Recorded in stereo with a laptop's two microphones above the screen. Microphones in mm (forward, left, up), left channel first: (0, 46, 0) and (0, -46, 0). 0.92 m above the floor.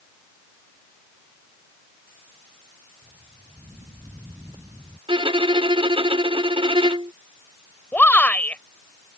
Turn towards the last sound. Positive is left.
turn(degrees=20)  # may be behind; listen again after turning